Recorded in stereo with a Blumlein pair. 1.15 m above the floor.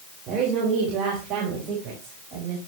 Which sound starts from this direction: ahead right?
A woman speaking, at 0.3 s.